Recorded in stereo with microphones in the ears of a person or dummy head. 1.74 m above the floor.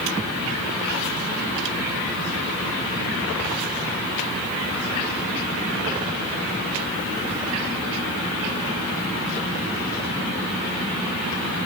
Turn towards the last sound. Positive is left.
No sound to turn to.